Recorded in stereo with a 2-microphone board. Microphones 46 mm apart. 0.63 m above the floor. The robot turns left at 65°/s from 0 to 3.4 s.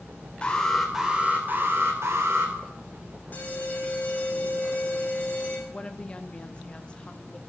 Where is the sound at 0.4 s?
25° left, 2.5 m; by 2.5 s 115° right, 2.5 m.